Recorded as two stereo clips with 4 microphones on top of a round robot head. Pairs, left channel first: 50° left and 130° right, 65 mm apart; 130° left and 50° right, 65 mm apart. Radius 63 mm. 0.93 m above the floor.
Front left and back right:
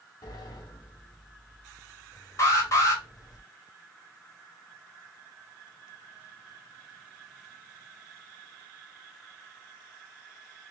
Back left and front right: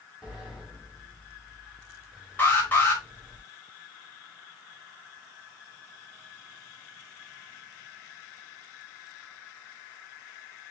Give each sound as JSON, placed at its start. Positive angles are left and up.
{"t": 0.2, "sound": "a sliding door", "azimuth_deg": 30, "distance_m": 1.9}
{"t": 2.4, "sound": "an alarm", "azimuth_deg": 70, "distance_m": 2.0}